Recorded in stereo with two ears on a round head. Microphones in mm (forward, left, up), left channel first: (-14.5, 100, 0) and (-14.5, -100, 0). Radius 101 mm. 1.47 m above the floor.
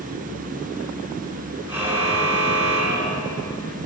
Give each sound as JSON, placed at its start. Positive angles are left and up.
{"t": 1.7, "sound": "a car horn", "side_deg": -10, "distance_m": 8.5}